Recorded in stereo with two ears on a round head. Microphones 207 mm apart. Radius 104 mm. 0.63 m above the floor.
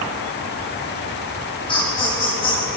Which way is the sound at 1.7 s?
25° left (ahead or behind).